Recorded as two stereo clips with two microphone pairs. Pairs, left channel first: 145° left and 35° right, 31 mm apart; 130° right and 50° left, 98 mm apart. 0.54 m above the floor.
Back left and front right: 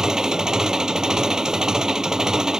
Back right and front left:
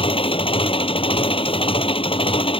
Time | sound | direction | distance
0.0 | an engine running | 110° right | ?